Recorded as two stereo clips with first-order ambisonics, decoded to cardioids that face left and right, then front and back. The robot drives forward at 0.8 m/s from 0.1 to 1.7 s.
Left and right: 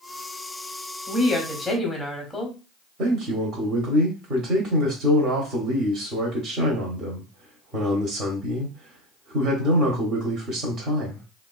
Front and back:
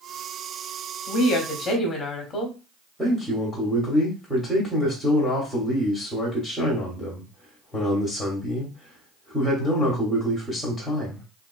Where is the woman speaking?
Straight ahead, 1.2 m; by 2.6 s 5° left, 0.9 m.